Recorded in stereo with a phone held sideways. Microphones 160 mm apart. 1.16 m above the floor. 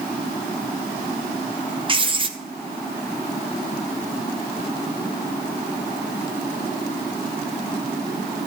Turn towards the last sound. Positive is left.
turn(degrees=-30)  # may be behind; listen again after turning